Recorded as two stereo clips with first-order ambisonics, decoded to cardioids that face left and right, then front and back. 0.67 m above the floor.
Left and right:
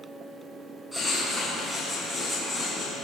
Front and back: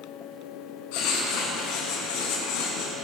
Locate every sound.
0.9 s writing: straight ahead, 8 m